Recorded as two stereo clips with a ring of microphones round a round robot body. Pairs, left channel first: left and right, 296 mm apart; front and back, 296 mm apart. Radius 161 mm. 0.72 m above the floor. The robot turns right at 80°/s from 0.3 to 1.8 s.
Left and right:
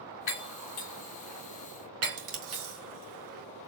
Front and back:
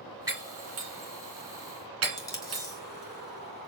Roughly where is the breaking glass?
Left.